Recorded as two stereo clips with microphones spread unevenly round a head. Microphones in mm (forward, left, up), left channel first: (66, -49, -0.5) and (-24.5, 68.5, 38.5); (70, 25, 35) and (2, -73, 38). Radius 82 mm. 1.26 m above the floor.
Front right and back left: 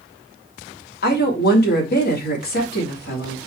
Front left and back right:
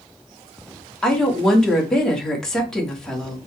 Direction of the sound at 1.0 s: 30° right.